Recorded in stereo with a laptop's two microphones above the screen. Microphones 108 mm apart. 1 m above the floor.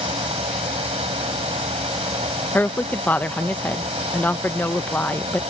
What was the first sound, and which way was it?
A fan, 85° right.